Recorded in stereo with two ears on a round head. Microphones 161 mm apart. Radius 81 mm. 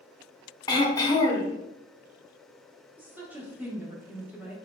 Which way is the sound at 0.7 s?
20° left (ahead or behind).